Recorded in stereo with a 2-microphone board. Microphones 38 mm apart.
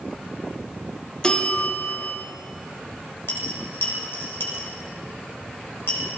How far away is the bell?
About 0.8 m.